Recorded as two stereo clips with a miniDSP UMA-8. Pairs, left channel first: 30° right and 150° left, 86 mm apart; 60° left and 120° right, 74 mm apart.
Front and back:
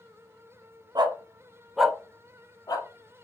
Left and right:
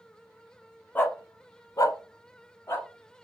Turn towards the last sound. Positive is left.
turn(degrees=5)